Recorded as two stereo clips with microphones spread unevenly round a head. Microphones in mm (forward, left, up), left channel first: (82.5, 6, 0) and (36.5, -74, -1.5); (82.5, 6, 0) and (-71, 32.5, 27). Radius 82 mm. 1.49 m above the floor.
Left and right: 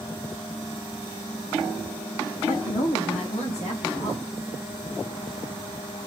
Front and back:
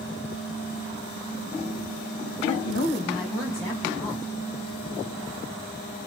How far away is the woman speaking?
About 2.5 m.